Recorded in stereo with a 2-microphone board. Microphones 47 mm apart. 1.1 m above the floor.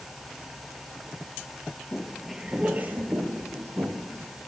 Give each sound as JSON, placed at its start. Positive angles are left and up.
{"t": 1.9, "sound": "footsteps", "side_deg": 20, "distance_m": 1.1}